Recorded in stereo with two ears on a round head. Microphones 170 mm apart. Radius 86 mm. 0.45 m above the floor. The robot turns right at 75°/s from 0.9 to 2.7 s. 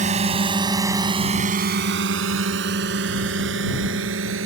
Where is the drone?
40° right (ahead or behind); by 4.5 s 70° right (ahead or behind).